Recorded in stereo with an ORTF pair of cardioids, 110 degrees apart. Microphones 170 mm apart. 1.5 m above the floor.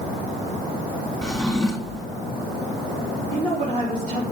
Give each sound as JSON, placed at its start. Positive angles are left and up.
{"t": 1.2, "sound": "a drawer", "azimuth_deg": 5, "distance_m": 1.8}
{"t": 3.3, "sound": "a woman speaking", "azimuth_deg": -40, "distance_m": 4.0}